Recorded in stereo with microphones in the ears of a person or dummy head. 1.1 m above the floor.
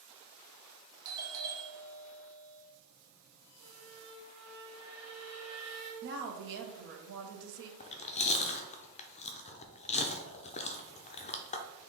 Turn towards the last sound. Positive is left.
turn(degrees=20)  # may be behind; listen again after turning